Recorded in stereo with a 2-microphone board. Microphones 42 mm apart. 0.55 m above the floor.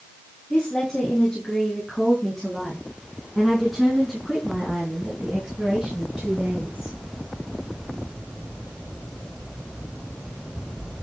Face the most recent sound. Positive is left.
turn(degrees=-25)  # may be behind; listen again after turning